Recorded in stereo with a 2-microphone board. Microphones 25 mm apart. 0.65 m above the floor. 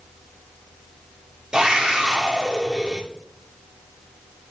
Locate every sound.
1.5 s a scream: 30° right (ahead or behind), 1.7 m